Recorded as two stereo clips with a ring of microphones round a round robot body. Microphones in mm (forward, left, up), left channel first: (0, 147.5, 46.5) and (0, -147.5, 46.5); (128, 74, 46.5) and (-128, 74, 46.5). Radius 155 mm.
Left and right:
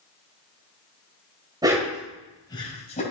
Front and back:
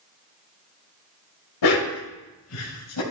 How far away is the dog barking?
About 1.3 m.